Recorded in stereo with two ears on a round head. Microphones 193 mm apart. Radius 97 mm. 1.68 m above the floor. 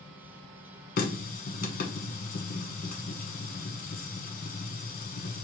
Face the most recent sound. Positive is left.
turn(degrees=40)  # may be behind; listen again after turning